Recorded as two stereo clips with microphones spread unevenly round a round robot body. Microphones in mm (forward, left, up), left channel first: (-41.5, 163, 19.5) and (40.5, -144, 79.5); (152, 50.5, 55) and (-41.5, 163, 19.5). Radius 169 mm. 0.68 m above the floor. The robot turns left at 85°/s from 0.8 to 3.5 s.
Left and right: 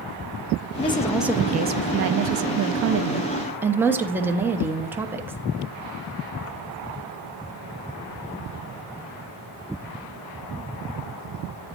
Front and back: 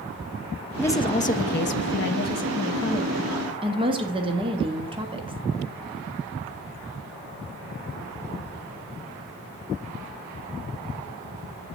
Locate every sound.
0.8 s a woman speaking: 60° left, 0.7 m; by 5.4 s 170° right, 0.7 m